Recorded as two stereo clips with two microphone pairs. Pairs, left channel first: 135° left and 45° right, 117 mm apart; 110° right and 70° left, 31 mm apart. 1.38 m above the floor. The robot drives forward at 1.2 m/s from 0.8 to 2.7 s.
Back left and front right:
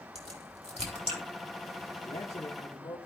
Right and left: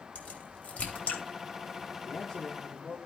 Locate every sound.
0.1 s a crack: 70° right, 3.5 m; by 1.2 s 75° right, 3 m
2.1 s a man speaking: 170° left, 1.6 m; by 3.0 s 175° left, 2.5 m